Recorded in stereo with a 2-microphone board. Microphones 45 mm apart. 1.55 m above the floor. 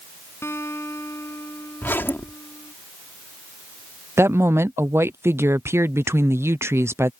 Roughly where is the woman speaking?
Right.